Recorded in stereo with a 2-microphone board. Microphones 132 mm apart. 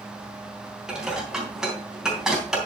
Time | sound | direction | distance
0.9 | dishes clattering | 5° right (ahead or behind) | 3 m